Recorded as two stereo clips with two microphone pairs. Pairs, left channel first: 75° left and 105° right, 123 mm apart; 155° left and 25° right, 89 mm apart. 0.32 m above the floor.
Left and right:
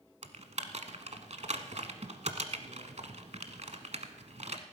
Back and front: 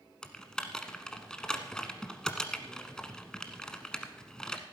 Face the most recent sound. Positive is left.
turn(degrees=-125)